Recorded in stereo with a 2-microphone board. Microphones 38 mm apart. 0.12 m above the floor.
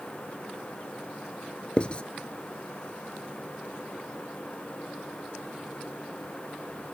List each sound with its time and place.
1.8 s writing: 30° left (ahead or behind), 0.6 m